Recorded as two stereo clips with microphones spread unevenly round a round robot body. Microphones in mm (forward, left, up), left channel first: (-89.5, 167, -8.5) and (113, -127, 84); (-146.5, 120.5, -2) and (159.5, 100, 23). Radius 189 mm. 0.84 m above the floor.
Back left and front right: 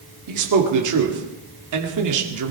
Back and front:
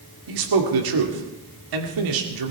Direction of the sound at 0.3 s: 10° right.